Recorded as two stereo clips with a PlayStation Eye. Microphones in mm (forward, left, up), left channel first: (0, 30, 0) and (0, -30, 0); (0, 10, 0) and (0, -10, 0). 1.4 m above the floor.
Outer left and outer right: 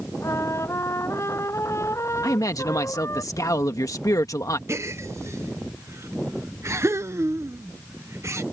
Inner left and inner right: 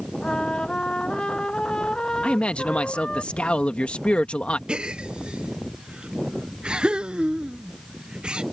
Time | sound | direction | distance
0.2 | a trumpet | 50° left (ahead or behind) | ?
2.2 | a man speaking | 70° left (ahead or behind) | ?
4.7 | a gasp | 50° right (ahead or behind) | ?